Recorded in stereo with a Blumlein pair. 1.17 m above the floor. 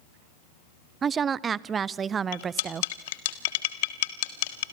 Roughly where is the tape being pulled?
No tape being pulled in this recording.